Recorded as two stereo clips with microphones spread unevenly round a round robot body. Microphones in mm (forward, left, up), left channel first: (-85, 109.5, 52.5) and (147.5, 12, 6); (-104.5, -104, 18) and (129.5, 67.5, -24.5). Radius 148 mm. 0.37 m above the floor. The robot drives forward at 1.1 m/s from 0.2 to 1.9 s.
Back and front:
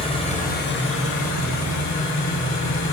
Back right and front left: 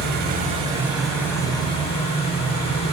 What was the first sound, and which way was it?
An engine running, 85° left.